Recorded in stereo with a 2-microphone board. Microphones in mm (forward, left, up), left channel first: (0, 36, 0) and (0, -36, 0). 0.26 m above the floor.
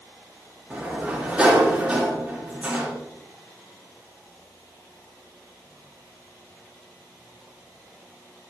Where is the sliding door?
20° right (ahead or behind), 3.5 m.